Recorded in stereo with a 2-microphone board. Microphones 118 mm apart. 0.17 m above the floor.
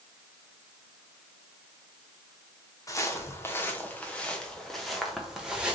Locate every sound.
2.9 s footsteps: 25° left (ahead or behind), 2 m; by 5.8 s 10° right (ahead or behind), 2.5 m